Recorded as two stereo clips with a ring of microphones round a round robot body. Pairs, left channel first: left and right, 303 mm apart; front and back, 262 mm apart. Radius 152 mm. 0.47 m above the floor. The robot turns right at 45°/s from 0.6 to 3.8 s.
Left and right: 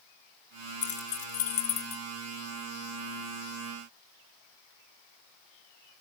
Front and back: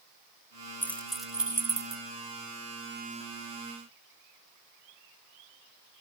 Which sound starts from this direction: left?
Keys jangling, at 0.8 s.